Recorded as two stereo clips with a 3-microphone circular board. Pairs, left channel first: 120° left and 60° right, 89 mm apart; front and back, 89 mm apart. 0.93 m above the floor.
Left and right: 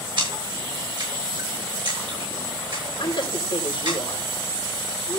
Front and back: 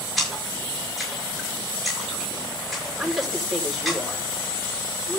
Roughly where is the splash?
Right.